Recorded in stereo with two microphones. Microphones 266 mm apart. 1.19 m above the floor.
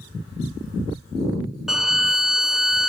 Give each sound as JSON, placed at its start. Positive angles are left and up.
{"t": 1.7, "sound": "a violin", "side_deg": 0, "distance_m": 0.6}